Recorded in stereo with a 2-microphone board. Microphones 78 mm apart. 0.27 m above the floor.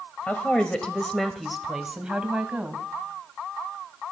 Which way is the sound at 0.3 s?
20° left (ahead or behind).